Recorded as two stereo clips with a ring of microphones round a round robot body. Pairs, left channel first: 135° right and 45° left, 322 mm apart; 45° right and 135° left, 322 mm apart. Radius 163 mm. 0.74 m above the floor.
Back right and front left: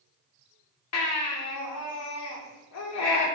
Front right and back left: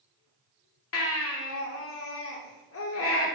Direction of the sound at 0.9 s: 95° right.